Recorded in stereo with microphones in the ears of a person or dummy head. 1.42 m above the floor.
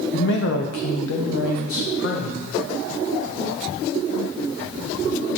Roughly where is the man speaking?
Left.